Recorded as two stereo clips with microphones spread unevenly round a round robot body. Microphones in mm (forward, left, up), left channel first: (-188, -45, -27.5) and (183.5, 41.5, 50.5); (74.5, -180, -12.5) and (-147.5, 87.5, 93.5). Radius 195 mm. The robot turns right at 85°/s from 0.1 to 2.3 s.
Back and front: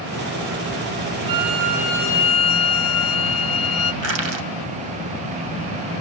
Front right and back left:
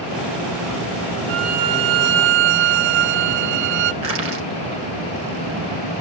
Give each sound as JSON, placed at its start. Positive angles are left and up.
{"t": 1.3, "sound": "a violin", "azimuth_deg": 55, "distance_m": 0.6}
{"t": 4.0, "sound": "crushing", "azimuth_deg": 70, "distance_m": 3.5}